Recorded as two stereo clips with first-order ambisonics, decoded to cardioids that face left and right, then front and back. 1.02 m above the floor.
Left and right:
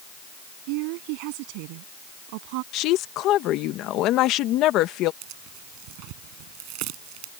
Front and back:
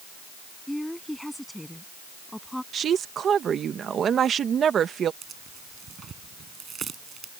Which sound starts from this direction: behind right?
Tearing paper, at 5.2 s.